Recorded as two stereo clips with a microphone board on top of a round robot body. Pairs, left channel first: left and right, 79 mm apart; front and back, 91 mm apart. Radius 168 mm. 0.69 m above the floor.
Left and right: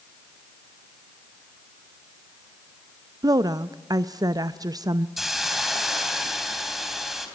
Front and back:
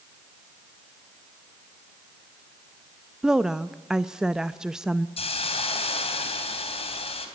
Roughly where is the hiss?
Ahead.